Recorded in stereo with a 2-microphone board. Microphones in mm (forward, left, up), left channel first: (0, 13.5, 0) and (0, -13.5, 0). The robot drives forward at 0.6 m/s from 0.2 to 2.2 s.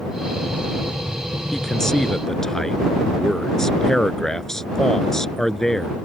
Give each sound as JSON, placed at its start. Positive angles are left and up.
{"t": 1.5, "sound": "a man speaking", "side_deg": 15}